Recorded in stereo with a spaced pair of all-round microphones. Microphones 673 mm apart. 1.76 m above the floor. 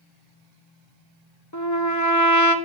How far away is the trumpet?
About 1.5 m.